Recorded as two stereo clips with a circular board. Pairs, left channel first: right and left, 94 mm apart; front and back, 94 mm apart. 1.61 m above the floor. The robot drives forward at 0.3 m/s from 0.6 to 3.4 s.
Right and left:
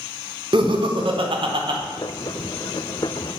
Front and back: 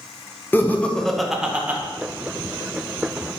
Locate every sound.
0.5 s laughter: 65° left, 0.5 m; by 1.8 s 110° left, 0.5 m